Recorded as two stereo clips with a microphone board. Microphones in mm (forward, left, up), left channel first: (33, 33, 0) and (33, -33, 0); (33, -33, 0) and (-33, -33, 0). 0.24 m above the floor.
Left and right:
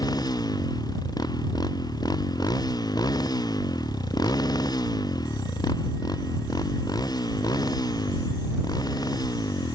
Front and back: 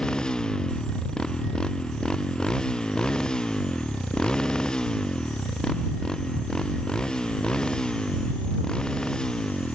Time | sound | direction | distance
0.0 | a motorcycle | 80° left | ?